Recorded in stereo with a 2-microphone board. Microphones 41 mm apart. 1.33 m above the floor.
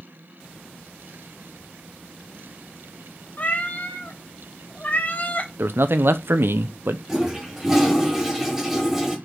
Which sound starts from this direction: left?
A cat meowing, at 3.4 s.